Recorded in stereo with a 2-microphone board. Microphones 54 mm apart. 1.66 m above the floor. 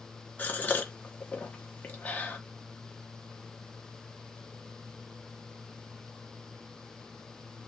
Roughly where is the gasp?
Left.